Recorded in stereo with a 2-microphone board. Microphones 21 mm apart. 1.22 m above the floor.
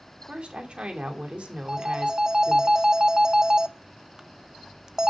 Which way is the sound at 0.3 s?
55° right (ahead or behind).